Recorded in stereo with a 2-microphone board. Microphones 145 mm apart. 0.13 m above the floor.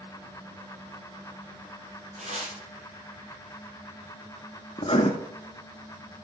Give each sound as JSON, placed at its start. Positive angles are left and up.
{"t": 2.2, "sound": "tearing paper", "side_deg": -50, "distance_m": 3.5}
{"t": 4.8, "sound": "writing", "side_deg": 40, "distance_m": 1.1}